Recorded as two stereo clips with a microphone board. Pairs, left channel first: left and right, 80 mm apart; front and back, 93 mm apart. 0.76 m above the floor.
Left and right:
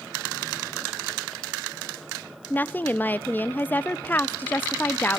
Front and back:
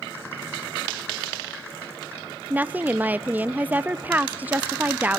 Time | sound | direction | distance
2.5 | a woman speaking | 130° left | 0.6 m